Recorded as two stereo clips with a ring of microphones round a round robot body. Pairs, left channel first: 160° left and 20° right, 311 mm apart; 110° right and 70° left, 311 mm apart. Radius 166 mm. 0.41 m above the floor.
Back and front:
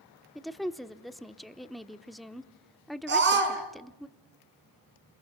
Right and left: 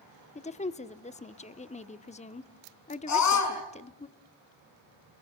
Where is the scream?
80° right, 5.5 m.